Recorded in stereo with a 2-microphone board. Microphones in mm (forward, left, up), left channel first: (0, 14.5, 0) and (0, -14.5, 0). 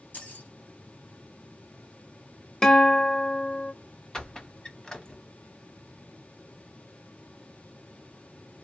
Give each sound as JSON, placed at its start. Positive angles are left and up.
{"t": 0.1, "sound": "keys jangling", "side_deg": 65, "distance_m": 1.6}
{"t": 2.6, "sound": "a guitar", "side_deg": 20, "distance_m": 0.8}
{"t": 4.1, "sound": "a squeak", "side_deg": 20, "distance_m": 0.9}